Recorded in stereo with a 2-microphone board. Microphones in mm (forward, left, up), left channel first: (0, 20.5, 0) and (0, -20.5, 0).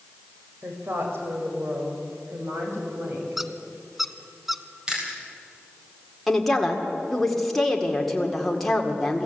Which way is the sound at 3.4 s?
5° right (ahead or behind).